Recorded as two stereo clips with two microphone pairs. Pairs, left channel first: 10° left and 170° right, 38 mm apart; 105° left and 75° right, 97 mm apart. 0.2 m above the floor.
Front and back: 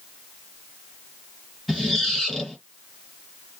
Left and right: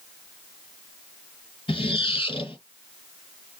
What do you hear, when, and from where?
1.7 s a squeak: 100° left, 1.9 m